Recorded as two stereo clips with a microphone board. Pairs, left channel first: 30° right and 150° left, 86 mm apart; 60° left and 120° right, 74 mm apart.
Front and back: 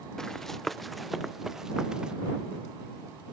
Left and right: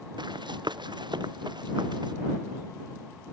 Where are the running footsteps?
115° right; by 2.1 s 130° right.